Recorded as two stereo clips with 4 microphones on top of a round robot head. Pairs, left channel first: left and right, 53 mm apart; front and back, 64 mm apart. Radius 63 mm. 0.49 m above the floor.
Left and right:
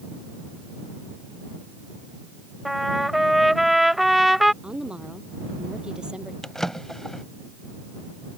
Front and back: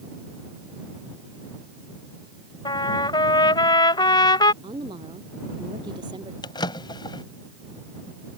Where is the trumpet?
5° right.